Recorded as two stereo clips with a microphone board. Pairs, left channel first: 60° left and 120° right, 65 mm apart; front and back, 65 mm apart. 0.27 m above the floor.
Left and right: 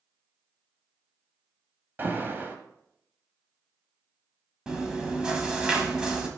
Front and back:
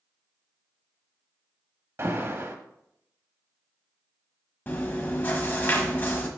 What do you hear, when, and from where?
2.0 s an alarm: 160° right, 1.0 m
4.7 s chewing: 45° right, 1.3 m